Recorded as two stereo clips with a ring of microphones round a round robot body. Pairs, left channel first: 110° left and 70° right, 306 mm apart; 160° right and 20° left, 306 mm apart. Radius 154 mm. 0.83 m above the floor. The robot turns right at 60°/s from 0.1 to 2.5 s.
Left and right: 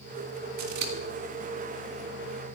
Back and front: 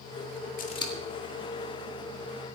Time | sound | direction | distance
0.6 | scissors | 95° right | 1.7 m